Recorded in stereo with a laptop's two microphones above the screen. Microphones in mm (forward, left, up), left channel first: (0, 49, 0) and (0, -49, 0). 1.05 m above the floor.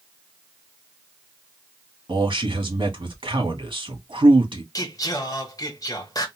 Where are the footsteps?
I don't hear footsteps.